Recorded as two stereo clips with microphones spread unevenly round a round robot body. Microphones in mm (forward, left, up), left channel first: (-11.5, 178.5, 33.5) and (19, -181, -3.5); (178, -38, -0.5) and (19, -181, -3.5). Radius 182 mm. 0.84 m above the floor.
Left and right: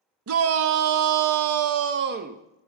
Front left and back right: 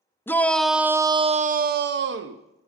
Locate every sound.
0.3 s a shout: 40° right, 0.8 m; by 2.4 s 150° right, 0.7 m